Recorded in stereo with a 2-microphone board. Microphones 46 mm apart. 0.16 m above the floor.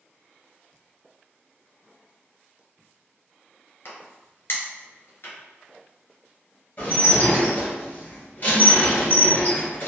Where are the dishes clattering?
40° left (ahead or behind), 1.9 m.